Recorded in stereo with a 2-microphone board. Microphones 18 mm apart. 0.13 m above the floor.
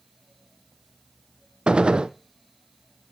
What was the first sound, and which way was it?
A gunshot, 80° right.